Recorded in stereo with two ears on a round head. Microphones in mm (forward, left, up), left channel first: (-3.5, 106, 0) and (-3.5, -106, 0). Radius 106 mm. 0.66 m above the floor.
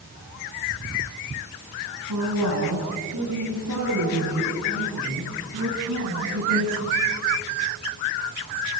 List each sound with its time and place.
2.1 s a woman speaking: 80° right, 7 m; by 7.1 s 65° right (ahead or behind), 8.5 m